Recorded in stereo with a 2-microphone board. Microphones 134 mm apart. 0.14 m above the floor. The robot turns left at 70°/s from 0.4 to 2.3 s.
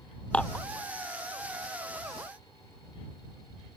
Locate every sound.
0.3 s dishes clattering: 10° left (ahead or behind); by 0.7 s 25° left (ahead or behind)